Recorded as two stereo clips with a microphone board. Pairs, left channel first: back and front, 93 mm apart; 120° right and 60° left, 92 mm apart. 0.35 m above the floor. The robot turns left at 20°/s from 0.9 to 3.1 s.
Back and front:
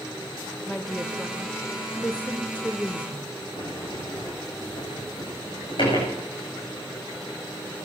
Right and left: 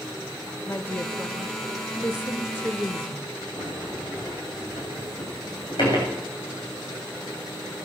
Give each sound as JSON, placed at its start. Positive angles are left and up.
{"t": 0.7, "sound": "a woman speaking", "azimuth_deg": -100, "distance_m": 0.9}
{"t": 3.6, "sound": "a sliding door", "azimuth_deg": -155, "distance_m": 9.0}